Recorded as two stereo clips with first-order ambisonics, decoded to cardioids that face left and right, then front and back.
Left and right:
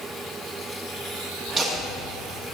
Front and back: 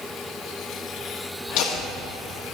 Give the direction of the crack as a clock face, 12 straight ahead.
No crack in this recording.